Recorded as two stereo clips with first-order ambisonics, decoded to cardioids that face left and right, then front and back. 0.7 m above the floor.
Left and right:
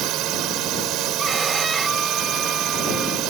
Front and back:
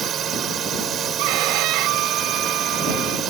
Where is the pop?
I don't hear a pop.